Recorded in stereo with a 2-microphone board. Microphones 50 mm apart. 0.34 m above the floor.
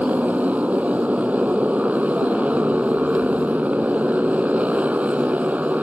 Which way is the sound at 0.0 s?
30° right (ahead or behind).